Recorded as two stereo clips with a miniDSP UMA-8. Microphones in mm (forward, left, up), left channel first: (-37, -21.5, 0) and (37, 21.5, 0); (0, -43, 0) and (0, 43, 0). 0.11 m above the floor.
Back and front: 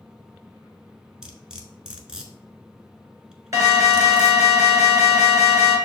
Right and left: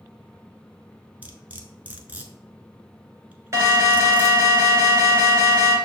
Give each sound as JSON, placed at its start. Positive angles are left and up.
{"t": 1.2, "sound": "cutlery clinking", "azimuth_deg": 90, "distance_m": 0.7}
{"t": 3.5, "sound": "an alarm", "azimuth_deg": 55, "distance_m": 1.4}